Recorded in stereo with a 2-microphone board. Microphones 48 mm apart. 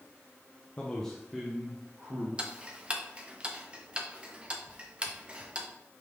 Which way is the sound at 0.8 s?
30° left (ahead or behind).